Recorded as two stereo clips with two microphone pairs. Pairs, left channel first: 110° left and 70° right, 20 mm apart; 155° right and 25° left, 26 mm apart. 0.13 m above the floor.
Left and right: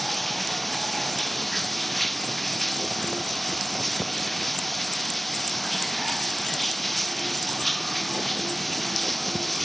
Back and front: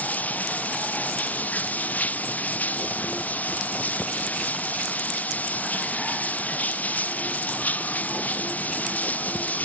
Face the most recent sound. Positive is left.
turn(degrees=-165)